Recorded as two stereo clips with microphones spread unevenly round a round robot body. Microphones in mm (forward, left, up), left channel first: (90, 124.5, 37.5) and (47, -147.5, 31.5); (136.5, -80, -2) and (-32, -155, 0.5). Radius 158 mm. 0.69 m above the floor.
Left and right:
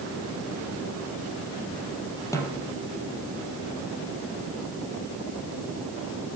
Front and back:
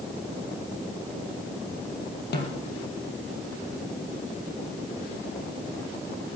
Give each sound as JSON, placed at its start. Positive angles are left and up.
{"t": 2.3, "sound": "a snare drum", "azimuth_deg": 5, "distance_m": 4.0}